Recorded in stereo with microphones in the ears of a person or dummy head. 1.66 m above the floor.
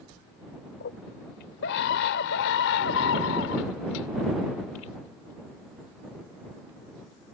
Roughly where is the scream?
Left.